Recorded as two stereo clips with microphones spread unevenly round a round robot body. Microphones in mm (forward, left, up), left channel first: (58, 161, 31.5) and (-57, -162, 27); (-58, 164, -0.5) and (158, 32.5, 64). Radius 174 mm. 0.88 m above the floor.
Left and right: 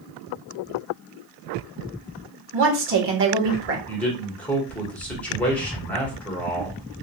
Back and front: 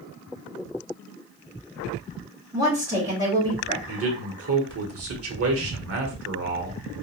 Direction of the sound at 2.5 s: 115° right.